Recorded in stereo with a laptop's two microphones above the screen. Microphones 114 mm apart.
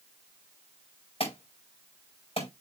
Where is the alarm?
60° left (ahead or behind), 5 m.